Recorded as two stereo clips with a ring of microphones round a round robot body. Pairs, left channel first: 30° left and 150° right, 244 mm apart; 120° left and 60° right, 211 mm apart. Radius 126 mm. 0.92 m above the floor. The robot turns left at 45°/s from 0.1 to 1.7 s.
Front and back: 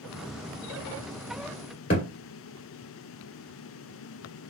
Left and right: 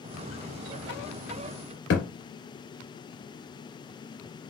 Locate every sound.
1.9 s a thud: 85° left, 1.7 m